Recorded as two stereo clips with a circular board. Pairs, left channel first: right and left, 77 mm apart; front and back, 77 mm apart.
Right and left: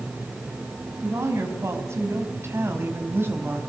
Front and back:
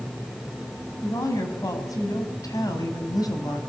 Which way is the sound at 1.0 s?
40° left.